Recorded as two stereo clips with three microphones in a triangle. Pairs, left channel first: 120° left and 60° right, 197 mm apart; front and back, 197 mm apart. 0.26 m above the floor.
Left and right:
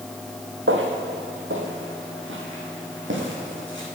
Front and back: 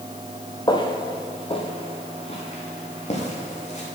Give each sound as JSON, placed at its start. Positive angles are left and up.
{"t": 0.7, "sound": "footsteps", "azimuth_deg": -70, "distance_m": 2.0}